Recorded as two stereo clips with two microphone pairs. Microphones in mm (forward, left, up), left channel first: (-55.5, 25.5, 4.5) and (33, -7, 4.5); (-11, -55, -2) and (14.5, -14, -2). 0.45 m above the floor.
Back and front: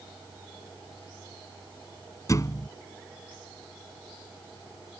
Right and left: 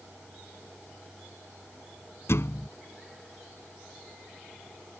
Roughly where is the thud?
Behind right.